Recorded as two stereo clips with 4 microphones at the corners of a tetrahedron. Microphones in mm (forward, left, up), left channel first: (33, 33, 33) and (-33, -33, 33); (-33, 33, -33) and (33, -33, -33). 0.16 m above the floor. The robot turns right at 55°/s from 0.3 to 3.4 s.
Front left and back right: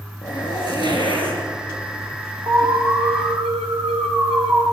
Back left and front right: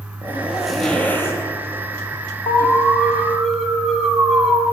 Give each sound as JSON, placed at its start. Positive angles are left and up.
{"t": 0.2, "sound": "a zipper", "azimuth_deg": 20, "distance_m": 2.5}
{"t": 2.5, "sound": "an alarm", "azimuth_deg": 170, "distance_m": 2.0}